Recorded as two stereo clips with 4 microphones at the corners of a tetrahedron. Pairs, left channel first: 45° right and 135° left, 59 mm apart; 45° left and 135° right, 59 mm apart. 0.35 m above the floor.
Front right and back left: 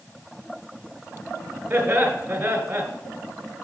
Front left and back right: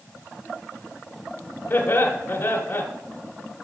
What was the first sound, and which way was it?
Laughter, 80° left.